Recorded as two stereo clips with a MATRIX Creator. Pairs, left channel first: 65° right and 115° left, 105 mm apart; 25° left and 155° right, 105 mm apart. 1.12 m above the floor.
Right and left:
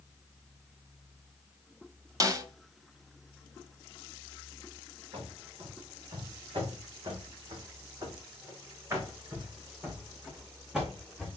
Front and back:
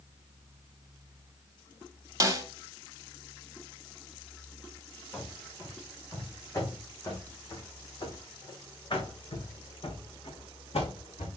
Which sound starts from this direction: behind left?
A snare drum, at 2.2 s.